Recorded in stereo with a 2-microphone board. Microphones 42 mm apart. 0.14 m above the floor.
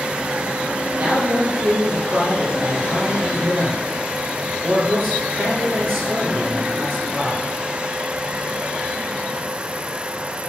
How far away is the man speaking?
About 4.5 m.